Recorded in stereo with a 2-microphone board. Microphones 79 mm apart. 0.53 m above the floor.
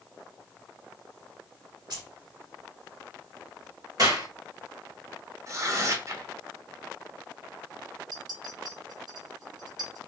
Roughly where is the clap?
Right.